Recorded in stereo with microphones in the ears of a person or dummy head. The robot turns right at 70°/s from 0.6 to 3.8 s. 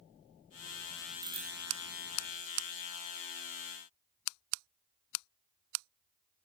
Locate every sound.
1.2 s a bicycle bell: 25° right (ahead or behind), 2.5 m; by 1.5 s 5° right (ahead or behind), 2.5 m